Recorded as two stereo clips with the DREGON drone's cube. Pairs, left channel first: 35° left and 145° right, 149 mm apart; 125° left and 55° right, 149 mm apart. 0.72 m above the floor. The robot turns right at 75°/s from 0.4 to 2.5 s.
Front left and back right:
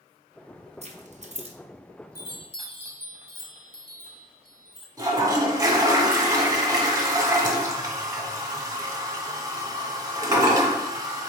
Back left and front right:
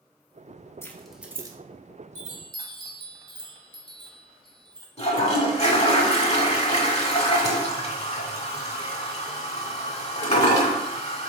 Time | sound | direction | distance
0.8 | keys jangling | 165° right | 0.7 m
2.1 | a chime | 30° right | 0.9 m
5.0 | a toilet flushing | 155° left | 0.9 m